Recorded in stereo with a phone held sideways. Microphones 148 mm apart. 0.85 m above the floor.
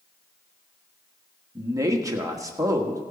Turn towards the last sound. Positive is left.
turn(degrees=-20)  # may be behind; listen again after turning